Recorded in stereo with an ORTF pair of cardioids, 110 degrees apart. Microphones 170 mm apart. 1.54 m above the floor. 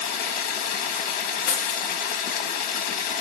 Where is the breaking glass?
65° left, 1.9 m.